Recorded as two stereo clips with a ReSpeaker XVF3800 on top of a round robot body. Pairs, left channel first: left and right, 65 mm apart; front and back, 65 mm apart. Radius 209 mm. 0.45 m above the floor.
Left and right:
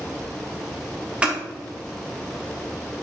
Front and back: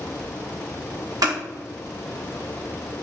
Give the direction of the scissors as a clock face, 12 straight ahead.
5 o'clock.